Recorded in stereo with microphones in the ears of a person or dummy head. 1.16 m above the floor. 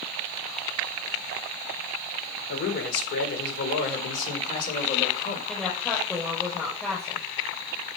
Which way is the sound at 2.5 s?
60° left (ahead or behind).